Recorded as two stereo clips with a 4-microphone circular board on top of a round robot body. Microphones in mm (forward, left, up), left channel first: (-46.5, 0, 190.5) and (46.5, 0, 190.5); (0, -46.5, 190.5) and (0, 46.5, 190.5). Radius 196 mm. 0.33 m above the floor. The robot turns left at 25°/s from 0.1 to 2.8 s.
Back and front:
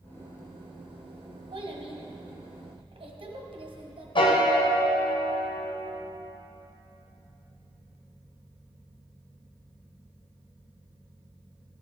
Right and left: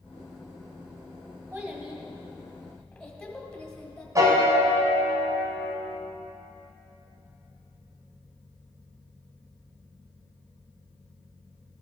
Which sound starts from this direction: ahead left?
A child speaking, at 1.5 s.